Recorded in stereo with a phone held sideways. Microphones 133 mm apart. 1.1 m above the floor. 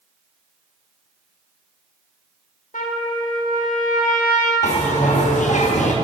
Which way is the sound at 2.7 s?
75° left (ahead or behind).